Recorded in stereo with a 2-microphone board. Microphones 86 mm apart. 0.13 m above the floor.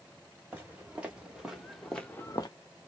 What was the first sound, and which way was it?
Footsteps, 20° right (ahead or behind).